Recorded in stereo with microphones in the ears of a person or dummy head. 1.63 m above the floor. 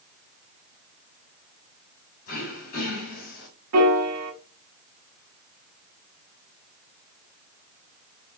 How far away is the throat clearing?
About 2 m.